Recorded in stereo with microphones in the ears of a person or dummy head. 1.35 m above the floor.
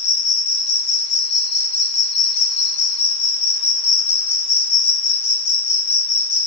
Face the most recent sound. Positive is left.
turn(degrees=80)